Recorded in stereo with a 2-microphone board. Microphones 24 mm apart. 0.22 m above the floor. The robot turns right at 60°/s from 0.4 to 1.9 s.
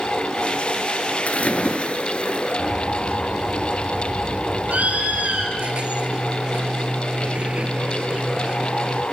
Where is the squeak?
50° right (ahead or behind), 1.7 m.